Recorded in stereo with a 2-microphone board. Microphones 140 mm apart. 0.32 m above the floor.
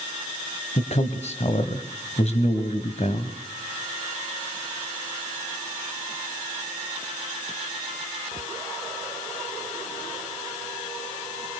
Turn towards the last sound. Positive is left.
turn(degrees=50)  # may be behind; listen again after turning